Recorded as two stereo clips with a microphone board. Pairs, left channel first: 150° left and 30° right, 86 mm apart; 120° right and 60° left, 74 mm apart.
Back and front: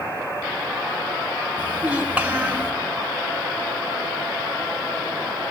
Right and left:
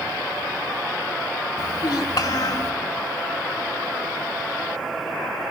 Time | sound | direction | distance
1.6 | a child speaking | 105° right | 1.4 m